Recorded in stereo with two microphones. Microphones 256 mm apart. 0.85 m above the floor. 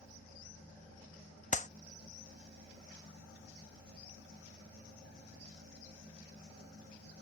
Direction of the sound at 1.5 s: 30° left (ahead or behind).